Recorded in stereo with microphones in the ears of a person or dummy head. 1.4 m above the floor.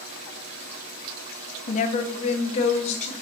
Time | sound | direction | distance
1.7 | a woman speaking | 40° left (ahead or behind) | 0.7 m